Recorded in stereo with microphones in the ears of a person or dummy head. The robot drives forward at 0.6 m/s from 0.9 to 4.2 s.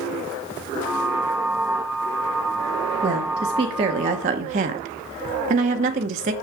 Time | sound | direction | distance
3.0 | a woman speaking | 25° right (ahead or behind) | 1.6 m